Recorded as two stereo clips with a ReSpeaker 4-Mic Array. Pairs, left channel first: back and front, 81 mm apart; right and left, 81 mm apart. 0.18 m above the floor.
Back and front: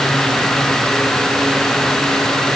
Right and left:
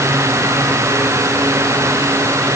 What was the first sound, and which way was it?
Only background noise.